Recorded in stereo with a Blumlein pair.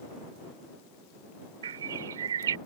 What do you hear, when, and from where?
1.6 s a bird: 65° right